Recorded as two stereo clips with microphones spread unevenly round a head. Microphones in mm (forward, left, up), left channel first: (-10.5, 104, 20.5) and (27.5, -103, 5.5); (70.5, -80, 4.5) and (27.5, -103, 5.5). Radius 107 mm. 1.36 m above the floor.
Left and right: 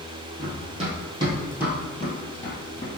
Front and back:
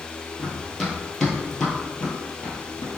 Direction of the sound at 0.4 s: 70° right.